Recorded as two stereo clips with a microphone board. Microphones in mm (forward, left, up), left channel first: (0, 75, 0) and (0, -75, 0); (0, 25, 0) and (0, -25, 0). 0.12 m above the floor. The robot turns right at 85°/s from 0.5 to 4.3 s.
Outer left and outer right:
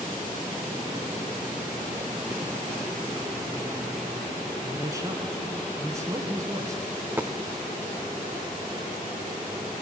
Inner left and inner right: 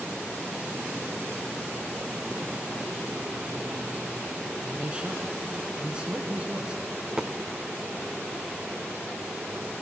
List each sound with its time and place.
4.6 s a man speaking: 20° right (ahead or behind), 1.4 m
7.0 s a dropped coin: 10° right (ahead or behind), 0.6 m